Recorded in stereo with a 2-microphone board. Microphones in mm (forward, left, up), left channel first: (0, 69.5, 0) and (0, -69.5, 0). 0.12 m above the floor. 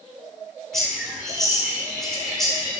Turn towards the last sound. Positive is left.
turn(degrees=0)  # may be behind; listen again after turning